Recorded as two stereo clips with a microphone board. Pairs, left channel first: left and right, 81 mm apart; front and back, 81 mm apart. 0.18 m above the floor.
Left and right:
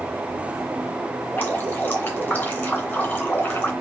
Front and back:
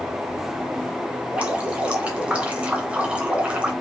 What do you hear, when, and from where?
1.3 s dripping: 125° left, 1.7 m